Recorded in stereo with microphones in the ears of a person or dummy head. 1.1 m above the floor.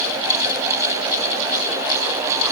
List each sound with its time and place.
Only background noise.